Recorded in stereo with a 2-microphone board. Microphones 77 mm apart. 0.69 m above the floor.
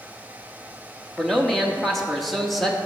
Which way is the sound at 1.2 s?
5° left (ahead or behind).